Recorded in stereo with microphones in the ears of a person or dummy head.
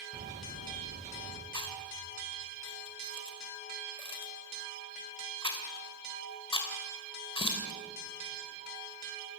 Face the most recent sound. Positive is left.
turn(degrees=25)  # may be behind; listen again after turning